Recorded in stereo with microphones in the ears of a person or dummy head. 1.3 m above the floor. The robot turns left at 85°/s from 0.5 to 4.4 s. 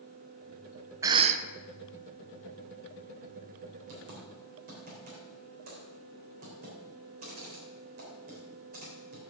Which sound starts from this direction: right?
Typing on a keyboard, at 3.9 s.